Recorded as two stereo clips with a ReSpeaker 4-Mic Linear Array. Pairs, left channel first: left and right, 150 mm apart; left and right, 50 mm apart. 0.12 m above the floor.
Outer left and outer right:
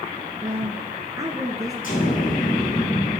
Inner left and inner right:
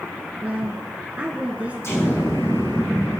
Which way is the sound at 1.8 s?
65° left (ahead or behind).